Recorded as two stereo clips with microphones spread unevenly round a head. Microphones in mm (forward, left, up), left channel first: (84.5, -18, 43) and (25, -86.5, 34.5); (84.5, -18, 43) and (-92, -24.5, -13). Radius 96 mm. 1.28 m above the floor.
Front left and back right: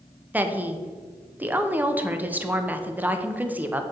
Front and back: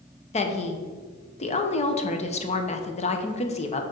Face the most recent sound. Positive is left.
turn(degrees=-60)